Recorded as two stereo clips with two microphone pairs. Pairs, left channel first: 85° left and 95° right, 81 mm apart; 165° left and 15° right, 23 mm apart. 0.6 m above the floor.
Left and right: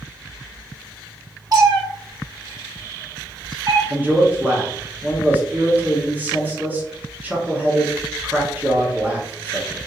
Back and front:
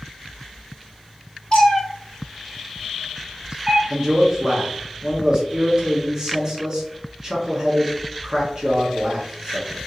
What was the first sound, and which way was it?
A cat meowing, 135° right.